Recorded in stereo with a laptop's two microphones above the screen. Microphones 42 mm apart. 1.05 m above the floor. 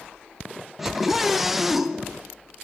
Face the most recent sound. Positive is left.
turn(degrees=-5)  # may be behind; listen again after turning